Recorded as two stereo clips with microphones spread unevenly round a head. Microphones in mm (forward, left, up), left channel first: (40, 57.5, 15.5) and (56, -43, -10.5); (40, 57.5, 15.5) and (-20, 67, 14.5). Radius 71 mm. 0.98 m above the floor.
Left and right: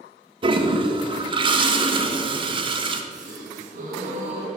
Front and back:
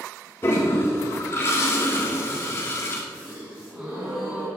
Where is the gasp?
110° right, 2.5 m.